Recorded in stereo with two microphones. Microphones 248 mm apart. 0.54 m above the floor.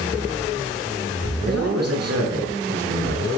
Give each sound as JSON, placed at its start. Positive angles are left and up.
{"t": 1.5, "sound": "a man speaking", "side_deg": -80, "distance_m": 6.5}